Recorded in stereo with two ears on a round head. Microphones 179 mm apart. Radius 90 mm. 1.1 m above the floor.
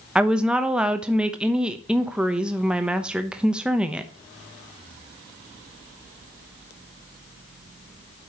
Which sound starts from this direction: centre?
A woman speaking, at 0.1 s.